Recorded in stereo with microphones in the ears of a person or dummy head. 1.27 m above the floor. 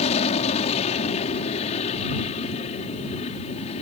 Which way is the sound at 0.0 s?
45° left (ahead or behind).